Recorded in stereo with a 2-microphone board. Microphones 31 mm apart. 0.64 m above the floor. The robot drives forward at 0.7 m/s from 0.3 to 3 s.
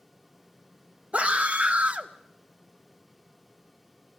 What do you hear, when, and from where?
1.1 s a scream: 45° right (ahead or behind), 1.3 m